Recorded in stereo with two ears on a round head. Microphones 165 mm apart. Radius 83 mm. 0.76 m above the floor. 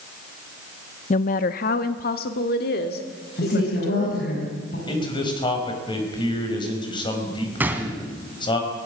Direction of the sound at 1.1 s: 40° left (ahead or behind).